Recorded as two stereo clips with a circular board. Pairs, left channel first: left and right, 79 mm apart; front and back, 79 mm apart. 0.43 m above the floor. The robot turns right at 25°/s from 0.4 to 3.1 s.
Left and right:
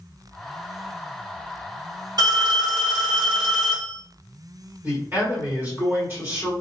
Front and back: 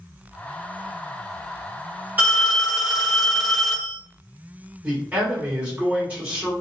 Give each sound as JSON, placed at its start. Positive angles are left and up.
{"t": 2.2, "sound": "a phone ringing", "azimuth_deg": -115, "distance_m": 1.3}
{"t": 4.8, "sound": "a man speaking", "azimuth_deg": -130, "distance_m": 1.7}